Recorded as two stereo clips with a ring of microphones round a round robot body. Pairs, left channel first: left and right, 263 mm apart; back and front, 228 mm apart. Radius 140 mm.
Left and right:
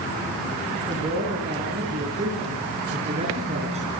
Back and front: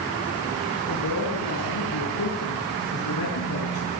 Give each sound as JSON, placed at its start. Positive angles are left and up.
{"t": 0.9, "sound": "a man speaking", "azimuth_deg": -160, "distance_m": 7.0}